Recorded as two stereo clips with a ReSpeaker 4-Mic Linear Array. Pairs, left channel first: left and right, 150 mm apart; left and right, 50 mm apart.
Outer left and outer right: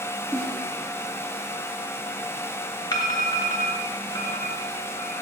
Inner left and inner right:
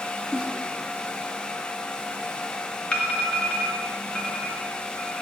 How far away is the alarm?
About 2.5 m.